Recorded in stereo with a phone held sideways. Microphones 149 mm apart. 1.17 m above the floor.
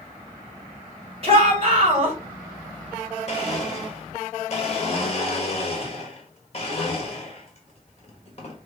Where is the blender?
45° left (ahead or behind), 1.3 m.